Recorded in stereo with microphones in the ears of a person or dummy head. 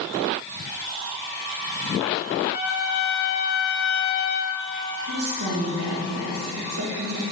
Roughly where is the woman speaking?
Right.